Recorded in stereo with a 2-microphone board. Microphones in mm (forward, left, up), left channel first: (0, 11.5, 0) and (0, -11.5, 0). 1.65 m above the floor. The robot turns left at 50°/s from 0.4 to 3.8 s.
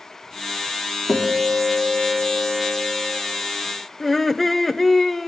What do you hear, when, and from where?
1.1 s a guitar: 95° left, 2 m; by 3.2 s 15° right, 2 m
4.0 s laughter: 10° left (ahead or behind), 0.7 m